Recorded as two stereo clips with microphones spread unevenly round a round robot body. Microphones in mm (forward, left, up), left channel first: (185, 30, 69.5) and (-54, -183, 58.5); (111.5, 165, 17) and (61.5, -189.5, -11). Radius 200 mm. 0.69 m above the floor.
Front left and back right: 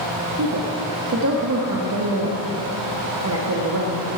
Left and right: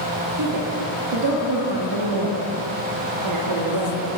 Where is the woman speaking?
120° right, 1.1 m.